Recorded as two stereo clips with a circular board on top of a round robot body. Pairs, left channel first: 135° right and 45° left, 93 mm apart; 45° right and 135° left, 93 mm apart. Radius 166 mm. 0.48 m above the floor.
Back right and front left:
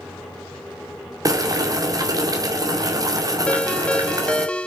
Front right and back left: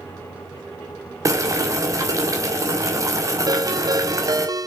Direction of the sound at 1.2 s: 85° left.